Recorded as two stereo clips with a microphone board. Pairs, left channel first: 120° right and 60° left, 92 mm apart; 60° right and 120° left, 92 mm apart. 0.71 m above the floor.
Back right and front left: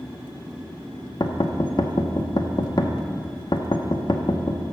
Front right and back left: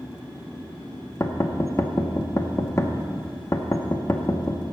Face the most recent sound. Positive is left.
turn(degrees=-110)